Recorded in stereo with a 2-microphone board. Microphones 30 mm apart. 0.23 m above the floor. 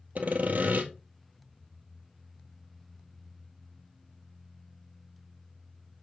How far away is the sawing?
About 1.4 m.